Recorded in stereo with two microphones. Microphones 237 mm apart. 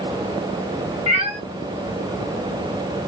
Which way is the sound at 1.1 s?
25° right (ahead or behind).